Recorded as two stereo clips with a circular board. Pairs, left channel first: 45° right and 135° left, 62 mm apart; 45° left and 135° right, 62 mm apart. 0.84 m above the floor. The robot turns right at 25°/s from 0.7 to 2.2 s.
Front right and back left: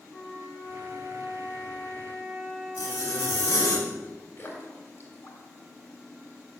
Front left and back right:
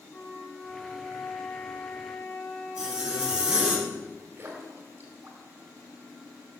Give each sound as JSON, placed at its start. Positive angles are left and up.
{"t": 0.1, "sound": "a flute", "azimuth_deg": -15, "distance_m": 3.5}
{"t": 2.8, "sound": "a zipper", "azimuth_deg": -55, "distance_m": 2.0}
{"t": 4.4, "sound": "a splash", "azimuth_deg": -90, "distance_m": 2.0}